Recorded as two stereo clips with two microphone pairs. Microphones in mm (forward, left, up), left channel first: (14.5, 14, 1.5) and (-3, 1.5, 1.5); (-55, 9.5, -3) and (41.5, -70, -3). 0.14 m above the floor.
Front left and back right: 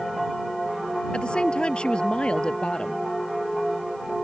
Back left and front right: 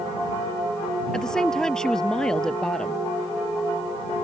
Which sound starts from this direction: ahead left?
A woman speaking, at 1.1 s.